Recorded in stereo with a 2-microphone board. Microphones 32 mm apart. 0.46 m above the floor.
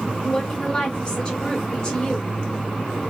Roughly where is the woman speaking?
Left.